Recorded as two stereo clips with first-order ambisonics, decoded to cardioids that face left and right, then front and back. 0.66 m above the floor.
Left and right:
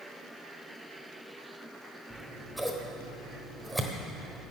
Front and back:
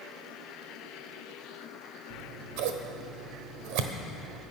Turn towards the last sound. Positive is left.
turn(degrees=-175)